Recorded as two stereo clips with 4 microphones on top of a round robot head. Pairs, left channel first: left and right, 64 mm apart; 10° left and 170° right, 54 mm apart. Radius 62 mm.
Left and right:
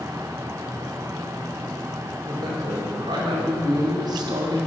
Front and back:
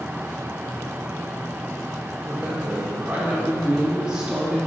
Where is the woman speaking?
100° right, 3.5 m; by 4.7 s 90° right, 2 m.